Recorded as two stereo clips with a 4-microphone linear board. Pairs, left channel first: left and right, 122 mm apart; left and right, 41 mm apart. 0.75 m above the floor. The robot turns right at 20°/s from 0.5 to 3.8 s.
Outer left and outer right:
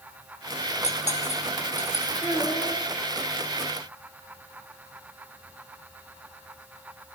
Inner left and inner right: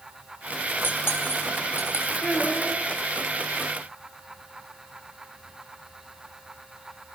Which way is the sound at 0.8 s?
60° left (ahead or behind).